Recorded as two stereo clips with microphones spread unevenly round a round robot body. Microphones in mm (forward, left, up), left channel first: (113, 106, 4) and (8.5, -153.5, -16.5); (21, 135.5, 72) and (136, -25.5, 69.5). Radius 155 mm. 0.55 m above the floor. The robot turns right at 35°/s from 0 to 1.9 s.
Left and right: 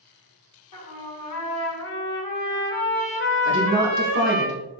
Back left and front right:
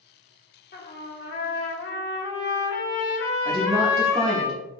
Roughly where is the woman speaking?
Behind right.